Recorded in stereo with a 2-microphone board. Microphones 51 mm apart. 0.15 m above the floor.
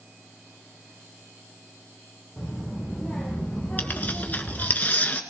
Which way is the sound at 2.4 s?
10° right (ahead or behind).